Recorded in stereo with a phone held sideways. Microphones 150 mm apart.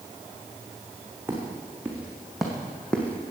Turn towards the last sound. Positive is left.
turn(degrees=15)  # may be behind; listen again after turning